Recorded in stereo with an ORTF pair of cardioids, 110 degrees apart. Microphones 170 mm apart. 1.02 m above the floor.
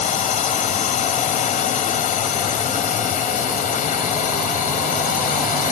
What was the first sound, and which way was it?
A drone, 45° left.